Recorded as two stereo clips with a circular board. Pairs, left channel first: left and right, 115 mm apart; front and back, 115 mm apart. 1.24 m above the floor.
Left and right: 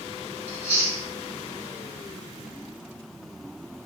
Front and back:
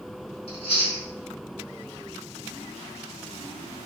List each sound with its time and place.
0.5 s chewing: 20° left, 1.6 m